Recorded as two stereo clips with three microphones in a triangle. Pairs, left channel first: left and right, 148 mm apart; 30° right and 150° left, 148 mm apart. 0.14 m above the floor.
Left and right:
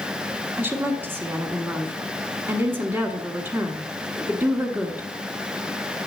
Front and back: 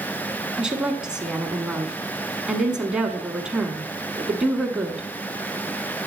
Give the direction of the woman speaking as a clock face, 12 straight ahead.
5 o'clock.